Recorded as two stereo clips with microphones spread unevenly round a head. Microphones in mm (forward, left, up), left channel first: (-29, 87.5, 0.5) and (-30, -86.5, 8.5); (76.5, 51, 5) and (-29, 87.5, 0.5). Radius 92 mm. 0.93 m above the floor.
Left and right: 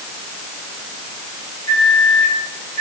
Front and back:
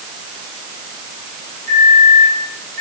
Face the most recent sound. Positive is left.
turn(degrees=-110)